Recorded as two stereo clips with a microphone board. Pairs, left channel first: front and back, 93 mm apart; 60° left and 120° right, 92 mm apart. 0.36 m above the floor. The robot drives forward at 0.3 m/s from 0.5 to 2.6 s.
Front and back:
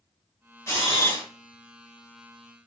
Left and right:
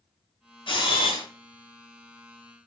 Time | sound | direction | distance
0.7 | a camera shutter | 60° left | 1.8 m